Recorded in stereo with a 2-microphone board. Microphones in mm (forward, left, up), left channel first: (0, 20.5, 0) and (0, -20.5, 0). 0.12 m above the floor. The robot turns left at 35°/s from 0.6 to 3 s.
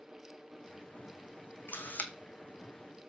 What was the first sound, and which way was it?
A camera shutter, 55° left (ahead or behind).